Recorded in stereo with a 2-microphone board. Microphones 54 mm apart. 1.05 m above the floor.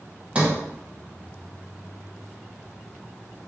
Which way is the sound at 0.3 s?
25° right (ahead or behind).